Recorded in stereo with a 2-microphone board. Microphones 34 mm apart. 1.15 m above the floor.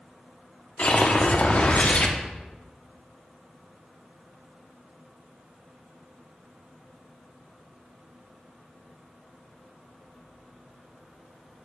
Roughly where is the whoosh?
Left.